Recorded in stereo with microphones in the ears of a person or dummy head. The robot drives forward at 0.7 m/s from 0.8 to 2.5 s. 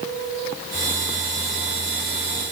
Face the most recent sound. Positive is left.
No sound to turn to.